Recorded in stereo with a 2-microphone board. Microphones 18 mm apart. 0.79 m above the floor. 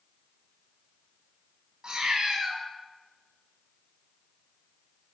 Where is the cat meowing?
45° right (ahead or behind), 1.3 m.